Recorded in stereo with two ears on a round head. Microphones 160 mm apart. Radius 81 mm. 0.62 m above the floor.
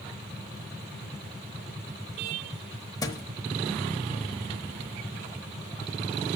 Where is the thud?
20° left (ahead or behind), 0.8 m.